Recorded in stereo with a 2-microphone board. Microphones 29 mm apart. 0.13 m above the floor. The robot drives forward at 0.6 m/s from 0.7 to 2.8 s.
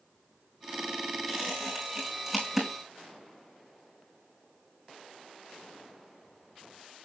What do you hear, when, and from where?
1.3 s a squeak: centre (ahead or behind), 5 m